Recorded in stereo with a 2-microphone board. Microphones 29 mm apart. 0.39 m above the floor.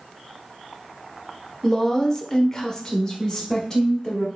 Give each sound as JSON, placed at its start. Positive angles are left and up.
{"t": 1.6, "sound": "a woman speaking", "side_deg": 15, "distance_m": 0.9}